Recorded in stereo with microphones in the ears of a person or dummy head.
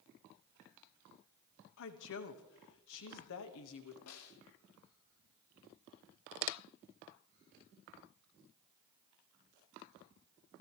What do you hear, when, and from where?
1.8 s a woman speaking: 70° left (ahead or behind), 1.5 m
4.1 s a snare drum: 80° left, 1.4 m